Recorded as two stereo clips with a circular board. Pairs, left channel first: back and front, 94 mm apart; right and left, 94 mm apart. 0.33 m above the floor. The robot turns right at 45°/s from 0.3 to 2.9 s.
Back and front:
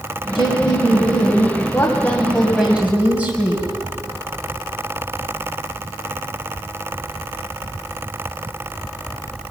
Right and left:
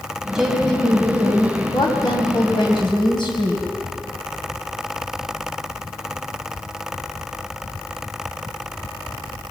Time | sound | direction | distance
0.3 | a woman speaking | 175° left | 2 m